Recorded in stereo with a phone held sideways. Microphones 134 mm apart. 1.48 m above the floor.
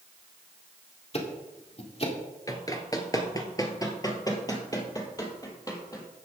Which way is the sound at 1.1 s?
45° left (ahead or behind).